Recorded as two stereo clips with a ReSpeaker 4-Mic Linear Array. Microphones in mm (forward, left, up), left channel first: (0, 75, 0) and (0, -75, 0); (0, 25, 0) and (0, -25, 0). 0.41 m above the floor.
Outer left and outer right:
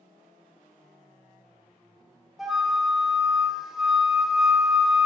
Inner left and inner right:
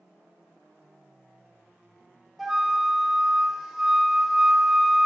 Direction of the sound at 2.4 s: 5° right (ahead or behind).